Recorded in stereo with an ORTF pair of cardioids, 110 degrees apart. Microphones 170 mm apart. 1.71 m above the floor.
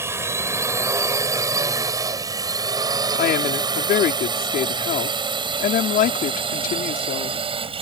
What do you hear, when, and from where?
0.0 s a drone: 15° right; by 7.8 s 35° right
3.1 s a woman speaking: 60° left